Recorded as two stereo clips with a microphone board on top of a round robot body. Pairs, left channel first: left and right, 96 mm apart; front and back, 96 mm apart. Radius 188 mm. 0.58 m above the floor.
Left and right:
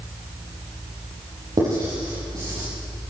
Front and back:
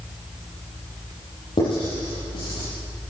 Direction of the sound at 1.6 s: 40° right.